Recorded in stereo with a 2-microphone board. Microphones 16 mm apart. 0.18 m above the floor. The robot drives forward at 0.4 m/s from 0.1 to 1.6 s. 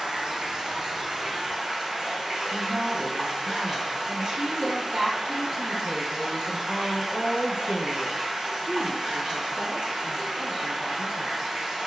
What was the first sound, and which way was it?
Running water, 60° right (ahead or behind).